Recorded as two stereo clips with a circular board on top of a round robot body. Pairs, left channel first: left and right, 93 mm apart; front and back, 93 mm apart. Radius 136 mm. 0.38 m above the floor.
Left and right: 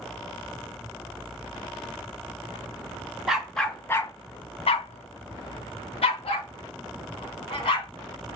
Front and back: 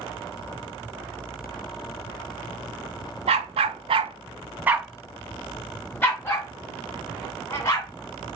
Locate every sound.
3.3 s a dog barking: 175° right, 0.7 m; by 7.9 s 60° left, 2 m